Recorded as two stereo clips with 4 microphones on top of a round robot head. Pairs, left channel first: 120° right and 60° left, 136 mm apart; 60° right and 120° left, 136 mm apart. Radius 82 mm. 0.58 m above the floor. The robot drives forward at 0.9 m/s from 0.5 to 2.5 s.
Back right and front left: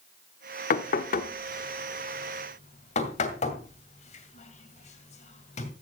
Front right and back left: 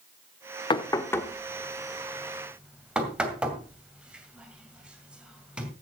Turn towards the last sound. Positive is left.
turn(degrees=-155)